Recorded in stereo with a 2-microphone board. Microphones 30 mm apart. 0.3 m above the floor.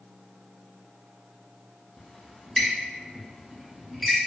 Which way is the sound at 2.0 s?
5° left (ahead or behind).